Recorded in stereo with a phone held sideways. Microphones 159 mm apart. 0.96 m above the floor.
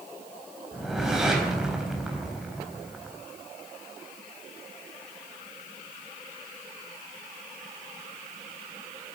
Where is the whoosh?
5° right (ahead or behind), 3.5 m.